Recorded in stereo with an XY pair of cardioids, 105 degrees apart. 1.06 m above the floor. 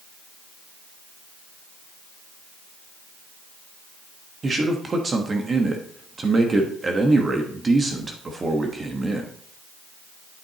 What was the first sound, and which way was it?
A man speaking, 35° right.